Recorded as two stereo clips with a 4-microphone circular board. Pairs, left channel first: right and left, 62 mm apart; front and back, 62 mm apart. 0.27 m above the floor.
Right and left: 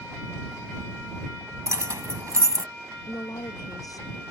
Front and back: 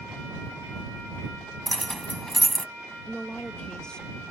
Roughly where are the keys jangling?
Left.